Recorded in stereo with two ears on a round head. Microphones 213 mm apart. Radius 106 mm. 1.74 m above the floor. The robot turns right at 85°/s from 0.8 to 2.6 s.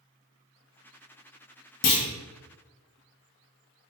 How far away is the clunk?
About 0.6 m.